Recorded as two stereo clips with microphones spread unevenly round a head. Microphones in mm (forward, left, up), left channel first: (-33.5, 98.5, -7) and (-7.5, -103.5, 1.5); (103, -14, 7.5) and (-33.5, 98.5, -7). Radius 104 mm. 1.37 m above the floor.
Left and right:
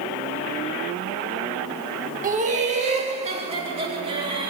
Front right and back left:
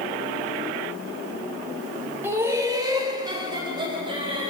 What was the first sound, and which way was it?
Laughter, 140° right.